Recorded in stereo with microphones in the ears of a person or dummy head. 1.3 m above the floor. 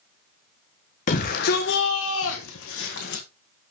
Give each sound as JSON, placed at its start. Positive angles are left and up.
{"t": 1.1, "sound": "a shout", "side_deg": 45, "distance_m": 1.4}